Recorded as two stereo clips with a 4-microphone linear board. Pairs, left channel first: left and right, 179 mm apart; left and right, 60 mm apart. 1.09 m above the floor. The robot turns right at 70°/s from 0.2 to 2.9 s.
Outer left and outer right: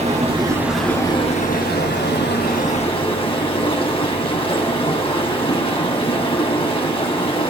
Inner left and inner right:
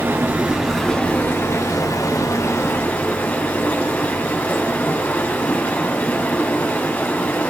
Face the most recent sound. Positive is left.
turn(degrees=150)